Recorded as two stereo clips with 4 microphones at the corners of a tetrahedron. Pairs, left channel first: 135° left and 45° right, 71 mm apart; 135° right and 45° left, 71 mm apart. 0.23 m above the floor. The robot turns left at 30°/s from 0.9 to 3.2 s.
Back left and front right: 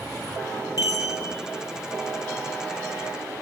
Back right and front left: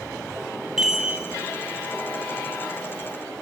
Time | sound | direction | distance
0.8 | a chime | 125° left | 0.6 m